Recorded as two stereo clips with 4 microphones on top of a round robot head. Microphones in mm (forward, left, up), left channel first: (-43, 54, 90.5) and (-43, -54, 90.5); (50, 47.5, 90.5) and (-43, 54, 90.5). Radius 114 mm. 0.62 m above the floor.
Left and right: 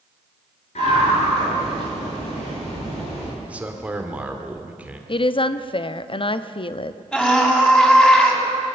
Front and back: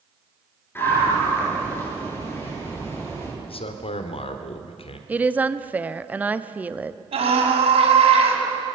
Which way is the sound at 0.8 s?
60° left.